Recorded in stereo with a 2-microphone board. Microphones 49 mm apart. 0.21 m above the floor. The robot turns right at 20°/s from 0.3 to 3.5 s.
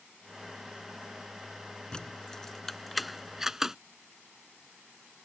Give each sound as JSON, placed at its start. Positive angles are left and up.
{"t": 1.9, "sound": "keys jangling", "side_deg": 20}